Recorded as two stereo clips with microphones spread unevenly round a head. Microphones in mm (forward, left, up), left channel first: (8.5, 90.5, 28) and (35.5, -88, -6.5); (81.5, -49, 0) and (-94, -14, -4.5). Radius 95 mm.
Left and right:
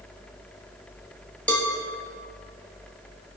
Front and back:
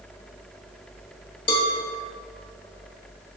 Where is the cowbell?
35° left, 1.4 m.